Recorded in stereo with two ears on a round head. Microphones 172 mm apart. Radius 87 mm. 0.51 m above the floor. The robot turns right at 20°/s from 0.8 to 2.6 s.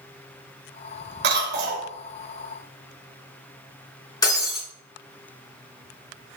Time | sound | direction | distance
1.2 | a cough | 60° right (ahead or behind) | 2 m
4.2 | breaking glass | 20° left (ahead or behind) | 3.5 m